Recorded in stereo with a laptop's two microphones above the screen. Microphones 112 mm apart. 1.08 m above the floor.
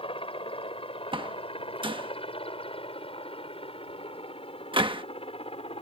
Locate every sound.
0.0 s a helicopter: 55° left (ahead or behind); by 5.8 s 60° left (ahead or behind)
1.1 s a door slam: 50° right (ahead or behind)